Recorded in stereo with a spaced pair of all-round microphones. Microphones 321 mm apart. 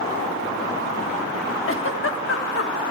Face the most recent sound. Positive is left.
turn(degrees=45)  # may be behind; listen again after turning